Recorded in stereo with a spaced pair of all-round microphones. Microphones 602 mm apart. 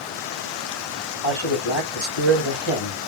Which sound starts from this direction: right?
A man speaking, at 1.2 s.